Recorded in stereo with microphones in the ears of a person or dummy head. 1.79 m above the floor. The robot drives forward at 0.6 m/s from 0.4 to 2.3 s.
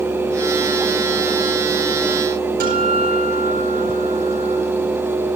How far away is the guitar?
About 9.5 m.